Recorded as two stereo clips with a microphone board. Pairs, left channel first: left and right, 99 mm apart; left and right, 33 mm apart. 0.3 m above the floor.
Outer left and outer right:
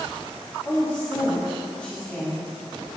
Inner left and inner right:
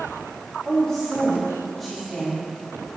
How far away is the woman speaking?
About 2.5 m.